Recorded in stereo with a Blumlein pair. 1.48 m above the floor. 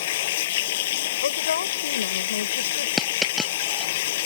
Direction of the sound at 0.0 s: 55° left.